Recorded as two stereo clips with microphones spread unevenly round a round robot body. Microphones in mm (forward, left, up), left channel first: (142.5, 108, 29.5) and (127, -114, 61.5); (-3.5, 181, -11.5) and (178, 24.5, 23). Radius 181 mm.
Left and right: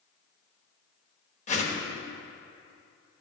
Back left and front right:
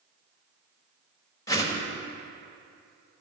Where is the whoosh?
80° left, 1.4 m.